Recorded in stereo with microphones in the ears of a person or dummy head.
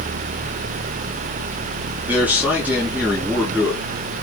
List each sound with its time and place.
2.0 s a man speaking: 10° right (ahead or behind), 3.5 m